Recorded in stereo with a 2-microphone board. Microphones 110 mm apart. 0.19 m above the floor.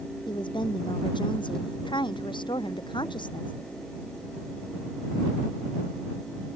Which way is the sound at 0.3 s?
45° left (ahead or behind).